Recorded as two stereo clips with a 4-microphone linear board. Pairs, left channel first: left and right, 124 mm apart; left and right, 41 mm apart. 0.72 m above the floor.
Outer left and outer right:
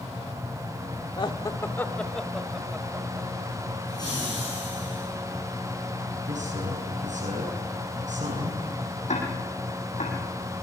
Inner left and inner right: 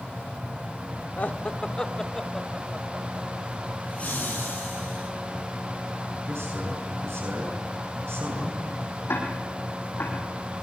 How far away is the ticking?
About 6 m.